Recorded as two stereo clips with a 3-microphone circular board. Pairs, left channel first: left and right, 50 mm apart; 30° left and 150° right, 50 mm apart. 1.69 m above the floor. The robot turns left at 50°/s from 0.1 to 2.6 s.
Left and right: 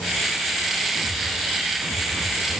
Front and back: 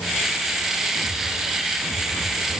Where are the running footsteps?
I don't hear running footsteps.